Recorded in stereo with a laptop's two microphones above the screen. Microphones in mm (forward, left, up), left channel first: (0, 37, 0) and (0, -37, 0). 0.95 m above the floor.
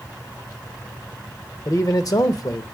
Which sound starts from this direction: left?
A man speaking, at 1.6 s.